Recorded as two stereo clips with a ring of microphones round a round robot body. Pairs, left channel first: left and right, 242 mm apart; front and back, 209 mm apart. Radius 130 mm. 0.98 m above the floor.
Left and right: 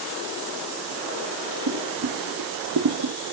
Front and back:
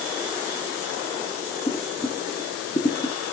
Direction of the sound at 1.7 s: 75° right.